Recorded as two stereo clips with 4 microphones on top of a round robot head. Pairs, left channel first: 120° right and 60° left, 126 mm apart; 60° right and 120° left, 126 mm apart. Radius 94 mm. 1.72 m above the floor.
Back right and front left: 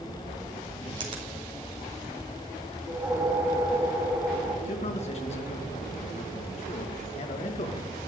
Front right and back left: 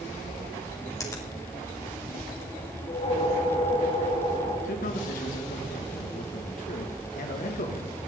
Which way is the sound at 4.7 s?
80° right.